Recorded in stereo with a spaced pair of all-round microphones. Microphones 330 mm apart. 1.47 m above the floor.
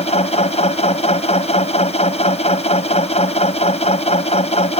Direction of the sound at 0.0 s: 20° left (ahead or behind).